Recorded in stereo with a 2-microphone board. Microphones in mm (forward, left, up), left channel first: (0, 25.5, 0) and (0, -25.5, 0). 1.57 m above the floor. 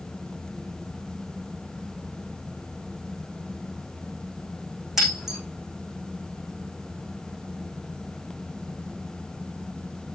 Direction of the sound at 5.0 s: 5° right (ahead or behind).